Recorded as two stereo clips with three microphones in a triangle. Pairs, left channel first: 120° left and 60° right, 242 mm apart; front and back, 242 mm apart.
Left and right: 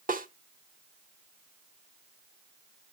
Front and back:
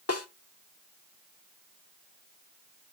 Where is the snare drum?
5° right, 1.0 m.